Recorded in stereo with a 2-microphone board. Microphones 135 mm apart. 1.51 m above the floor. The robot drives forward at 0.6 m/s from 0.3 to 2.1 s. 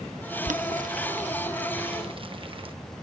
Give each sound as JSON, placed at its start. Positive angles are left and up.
{"t": 0.5, "sound": "boiling", "side_deg": -70}